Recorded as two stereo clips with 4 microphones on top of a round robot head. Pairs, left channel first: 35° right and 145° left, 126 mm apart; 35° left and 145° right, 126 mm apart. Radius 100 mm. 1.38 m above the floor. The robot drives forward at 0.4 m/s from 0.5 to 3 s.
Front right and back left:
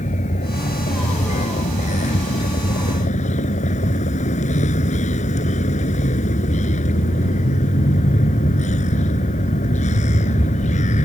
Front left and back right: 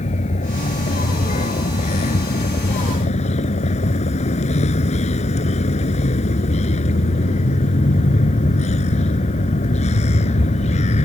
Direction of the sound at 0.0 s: Straight ahead.